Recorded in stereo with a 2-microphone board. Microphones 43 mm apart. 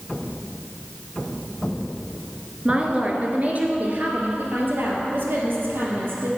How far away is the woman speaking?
About 1.6 m.